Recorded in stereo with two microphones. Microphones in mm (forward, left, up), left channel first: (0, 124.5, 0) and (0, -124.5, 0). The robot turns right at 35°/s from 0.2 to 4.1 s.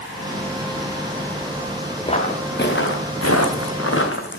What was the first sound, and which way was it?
Footsteps, 20° left (ahead or behind).